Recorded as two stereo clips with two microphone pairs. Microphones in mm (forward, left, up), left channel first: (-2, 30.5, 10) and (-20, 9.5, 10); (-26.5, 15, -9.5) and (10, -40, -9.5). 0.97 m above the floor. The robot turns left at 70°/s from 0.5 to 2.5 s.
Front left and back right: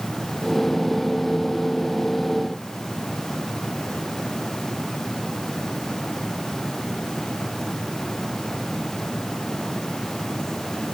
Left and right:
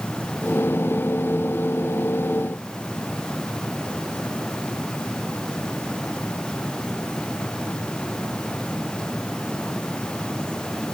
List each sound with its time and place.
Only background noise.